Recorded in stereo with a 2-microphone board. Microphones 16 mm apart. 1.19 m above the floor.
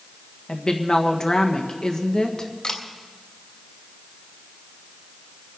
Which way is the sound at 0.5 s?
60° left (ahead or behind).